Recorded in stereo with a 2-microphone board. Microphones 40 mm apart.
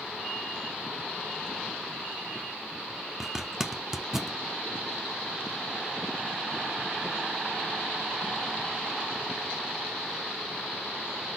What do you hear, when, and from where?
3.2 s a zipper: 10° right (ahead or behind), 0.8 m